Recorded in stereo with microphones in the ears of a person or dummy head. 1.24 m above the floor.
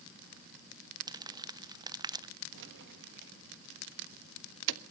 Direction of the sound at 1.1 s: 15° right (ahead or behind).